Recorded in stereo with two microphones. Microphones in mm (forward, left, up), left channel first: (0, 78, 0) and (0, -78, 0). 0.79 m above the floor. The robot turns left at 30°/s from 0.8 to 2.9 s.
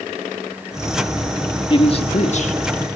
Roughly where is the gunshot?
I don't hear a gunshot.